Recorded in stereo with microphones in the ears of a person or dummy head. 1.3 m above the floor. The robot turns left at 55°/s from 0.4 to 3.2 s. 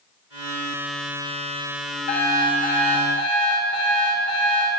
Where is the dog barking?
No dog barking in this recording.